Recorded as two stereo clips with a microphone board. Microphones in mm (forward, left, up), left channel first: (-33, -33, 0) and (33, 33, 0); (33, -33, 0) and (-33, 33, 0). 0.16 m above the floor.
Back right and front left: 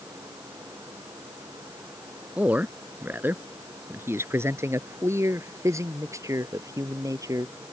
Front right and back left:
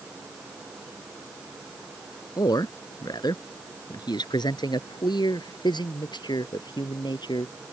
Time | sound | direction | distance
2.4 | a man speaking | 25° right | ?